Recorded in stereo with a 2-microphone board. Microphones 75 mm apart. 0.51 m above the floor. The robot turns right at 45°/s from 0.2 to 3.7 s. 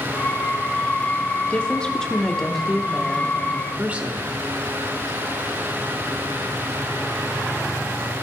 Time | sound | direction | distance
1.5 | a woman speaking | 20° left (ahead or behind) | 1.2 m